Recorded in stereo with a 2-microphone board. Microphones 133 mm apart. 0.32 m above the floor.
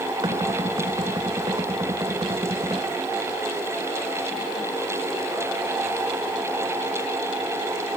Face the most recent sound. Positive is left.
turn(degrees=-35)  # may be behind; listen again after turning